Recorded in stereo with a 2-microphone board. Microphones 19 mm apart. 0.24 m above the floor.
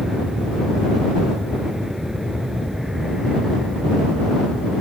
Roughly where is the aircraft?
Right.